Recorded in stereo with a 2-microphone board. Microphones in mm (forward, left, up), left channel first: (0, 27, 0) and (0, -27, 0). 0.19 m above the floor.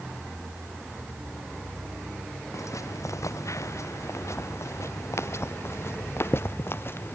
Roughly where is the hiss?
I don't hear a hiss.